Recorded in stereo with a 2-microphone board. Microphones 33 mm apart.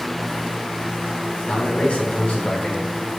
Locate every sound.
1.5 s a man speaking: 35° left (ahead or behind), 3 m; by 2.9 s 45° left (ahead or behind), 3.5 m